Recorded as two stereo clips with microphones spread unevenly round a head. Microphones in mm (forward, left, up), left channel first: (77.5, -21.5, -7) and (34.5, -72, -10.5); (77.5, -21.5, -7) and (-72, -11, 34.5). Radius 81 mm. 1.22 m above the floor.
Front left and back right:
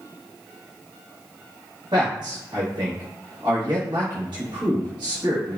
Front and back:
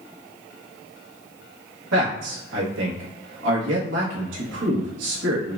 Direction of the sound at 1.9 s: Straight behind.